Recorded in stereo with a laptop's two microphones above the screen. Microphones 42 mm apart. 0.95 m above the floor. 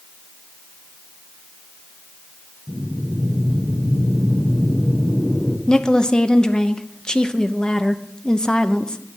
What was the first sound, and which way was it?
Breathing, 55° left (ahead or behind).